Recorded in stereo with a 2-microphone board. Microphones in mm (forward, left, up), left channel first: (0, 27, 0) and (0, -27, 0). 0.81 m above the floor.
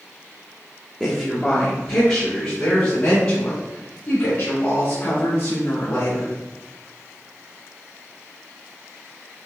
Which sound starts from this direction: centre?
A woman speaking, at 1.0 s.